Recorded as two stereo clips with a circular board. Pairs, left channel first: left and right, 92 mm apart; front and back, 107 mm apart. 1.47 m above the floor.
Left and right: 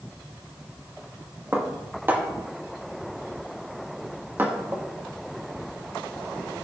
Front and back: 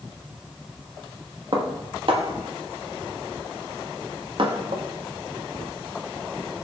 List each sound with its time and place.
1.5 s dishes clattering: 155° right, 1.3 m